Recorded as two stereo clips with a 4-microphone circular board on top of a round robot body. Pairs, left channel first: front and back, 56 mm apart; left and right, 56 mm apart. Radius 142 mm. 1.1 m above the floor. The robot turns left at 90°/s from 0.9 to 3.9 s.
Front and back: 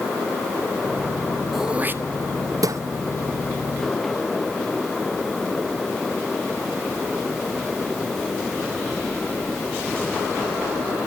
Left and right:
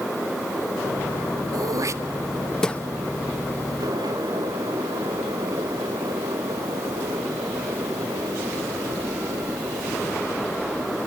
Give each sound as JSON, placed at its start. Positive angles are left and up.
{"t": 1.5, "sound": "throat clearing", "azimuth_deg": -90, "distance_m": 1.0}